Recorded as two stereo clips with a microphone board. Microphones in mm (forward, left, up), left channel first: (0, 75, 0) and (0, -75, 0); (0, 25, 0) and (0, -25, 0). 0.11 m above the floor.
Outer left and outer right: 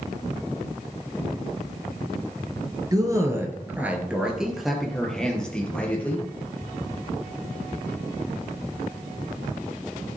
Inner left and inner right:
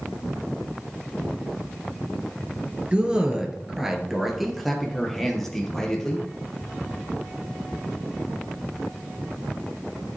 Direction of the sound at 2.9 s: 25° right (ahead or behind).